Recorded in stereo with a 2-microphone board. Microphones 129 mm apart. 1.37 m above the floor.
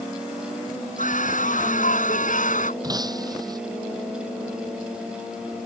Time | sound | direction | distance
1.0 | a scream | 85° left | ?
2.8 | breaking glass | 30° right (ahead or behind) | ?